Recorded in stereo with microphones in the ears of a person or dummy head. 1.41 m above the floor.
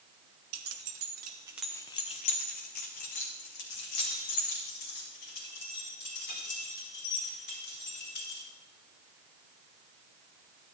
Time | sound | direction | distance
0.5 | keys jangling | 70° right (ahead or behind) | 0.9 m